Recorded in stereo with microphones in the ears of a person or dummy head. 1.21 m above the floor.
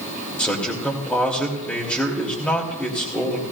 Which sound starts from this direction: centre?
A man speaking, at 0.4 s.